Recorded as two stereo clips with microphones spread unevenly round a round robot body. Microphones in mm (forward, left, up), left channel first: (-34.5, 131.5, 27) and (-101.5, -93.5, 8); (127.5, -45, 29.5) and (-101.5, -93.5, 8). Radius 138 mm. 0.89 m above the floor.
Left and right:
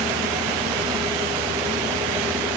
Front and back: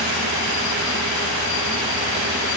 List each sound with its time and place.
Only background noise.